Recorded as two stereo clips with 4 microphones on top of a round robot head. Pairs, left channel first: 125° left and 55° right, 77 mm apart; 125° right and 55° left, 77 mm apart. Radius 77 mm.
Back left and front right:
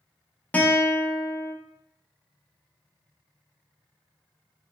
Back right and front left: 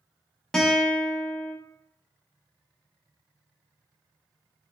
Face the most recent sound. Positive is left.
turn(degrees=165)